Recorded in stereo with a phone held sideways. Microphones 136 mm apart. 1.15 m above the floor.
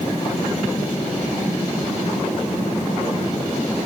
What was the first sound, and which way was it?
Only background noise.